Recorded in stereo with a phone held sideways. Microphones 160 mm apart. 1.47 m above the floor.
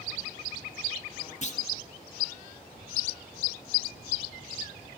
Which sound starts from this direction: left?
A clunk, at 1.4 s.